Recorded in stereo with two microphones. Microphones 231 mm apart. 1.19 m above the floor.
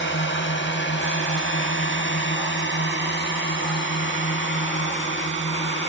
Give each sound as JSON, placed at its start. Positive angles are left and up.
{"t": 0.0, "sound": "a drone", "side_deg": 55}